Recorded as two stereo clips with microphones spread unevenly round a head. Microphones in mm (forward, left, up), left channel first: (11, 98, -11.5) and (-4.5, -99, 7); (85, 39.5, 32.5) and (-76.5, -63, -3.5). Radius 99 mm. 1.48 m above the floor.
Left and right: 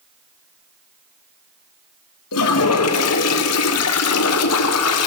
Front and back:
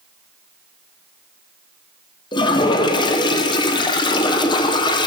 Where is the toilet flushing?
100° left, 0.8 m.